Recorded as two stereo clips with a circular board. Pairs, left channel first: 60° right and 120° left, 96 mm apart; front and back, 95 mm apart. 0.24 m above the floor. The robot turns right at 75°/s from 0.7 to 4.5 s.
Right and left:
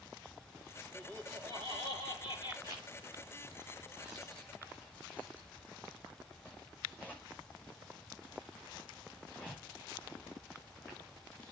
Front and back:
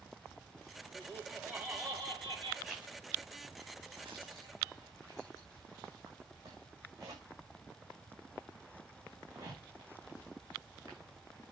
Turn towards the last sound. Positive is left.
turn(degrees=-130)